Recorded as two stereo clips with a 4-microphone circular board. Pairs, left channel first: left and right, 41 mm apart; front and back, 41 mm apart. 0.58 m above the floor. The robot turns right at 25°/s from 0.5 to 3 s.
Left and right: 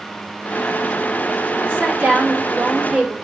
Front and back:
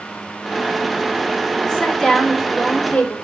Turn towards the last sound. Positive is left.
turn(degrees=-50)